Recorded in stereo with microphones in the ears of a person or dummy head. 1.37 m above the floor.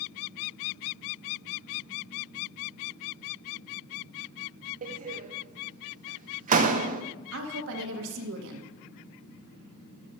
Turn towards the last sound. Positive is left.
turn(degrees=-80)